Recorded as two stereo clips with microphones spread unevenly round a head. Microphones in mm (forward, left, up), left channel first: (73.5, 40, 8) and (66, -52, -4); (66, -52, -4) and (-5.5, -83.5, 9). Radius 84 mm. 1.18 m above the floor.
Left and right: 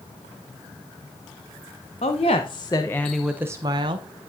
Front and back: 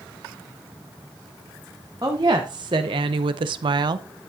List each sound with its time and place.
2.0 s a woman speaking: 135° left, 0.9 m; by 4.1 s 115° right, 0.6 m